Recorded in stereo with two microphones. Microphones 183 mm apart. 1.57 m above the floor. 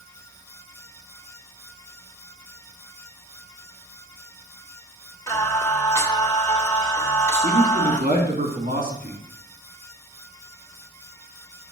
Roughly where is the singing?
Centre.